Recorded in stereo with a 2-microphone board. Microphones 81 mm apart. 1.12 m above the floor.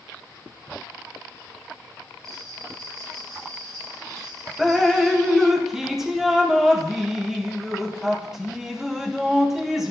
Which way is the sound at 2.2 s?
50° right (ahead or behind).